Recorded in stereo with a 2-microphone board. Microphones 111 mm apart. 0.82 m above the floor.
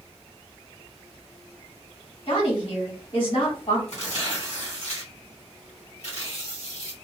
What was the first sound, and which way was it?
A woman speaking, 55° left (ahead or behind).